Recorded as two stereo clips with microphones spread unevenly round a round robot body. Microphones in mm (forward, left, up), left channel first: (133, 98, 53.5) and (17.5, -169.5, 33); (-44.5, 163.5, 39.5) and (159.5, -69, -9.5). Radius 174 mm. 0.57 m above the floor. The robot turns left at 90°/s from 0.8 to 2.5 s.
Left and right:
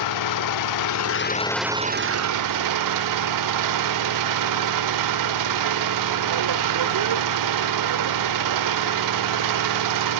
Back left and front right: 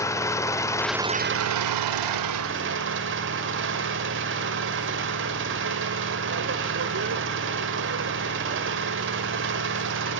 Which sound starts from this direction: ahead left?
An engine running, at 0.0 s.